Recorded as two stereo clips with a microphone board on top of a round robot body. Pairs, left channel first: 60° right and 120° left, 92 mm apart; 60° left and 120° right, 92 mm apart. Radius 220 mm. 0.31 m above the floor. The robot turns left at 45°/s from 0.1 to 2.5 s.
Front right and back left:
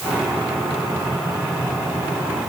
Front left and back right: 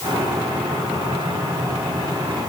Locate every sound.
Only background noise.